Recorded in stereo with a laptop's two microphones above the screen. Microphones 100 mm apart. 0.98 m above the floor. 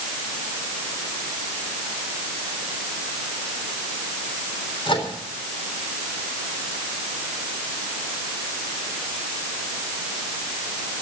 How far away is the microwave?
About 3.5 m.